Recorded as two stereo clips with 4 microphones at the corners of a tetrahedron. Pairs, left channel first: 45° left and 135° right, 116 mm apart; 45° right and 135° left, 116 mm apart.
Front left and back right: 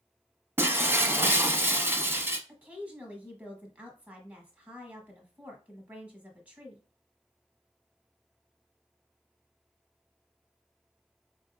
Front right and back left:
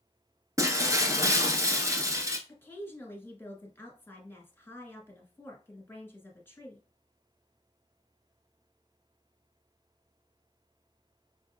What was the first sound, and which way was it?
Breaking glass, 170° left.